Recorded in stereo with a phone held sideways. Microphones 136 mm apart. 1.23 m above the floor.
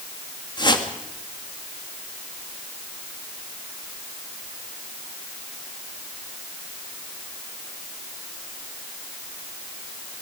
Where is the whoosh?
35° left (ahead or behind), 2 m.